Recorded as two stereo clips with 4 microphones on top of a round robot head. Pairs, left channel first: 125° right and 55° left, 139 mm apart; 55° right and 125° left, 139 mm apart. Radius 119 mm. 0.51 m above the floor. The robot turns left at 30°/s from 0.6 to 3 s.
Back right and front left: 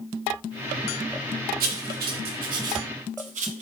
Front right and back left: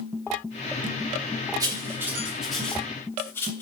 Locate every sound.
1.6 s writing: 65° left, 0.6 m; by 3.6 s 20° left, 0.6 m